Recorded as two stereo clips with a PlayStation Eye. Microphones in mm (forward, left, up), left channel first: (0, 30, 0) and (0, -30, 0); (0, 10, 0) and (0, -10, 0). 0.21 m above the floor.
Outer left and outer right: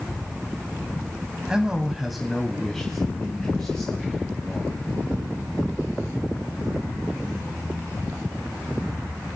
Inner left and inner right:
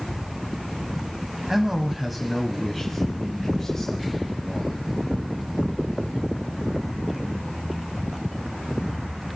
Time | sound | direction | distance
1.5 | a man speaking | 15° right (ahead or behind) | 1.1 m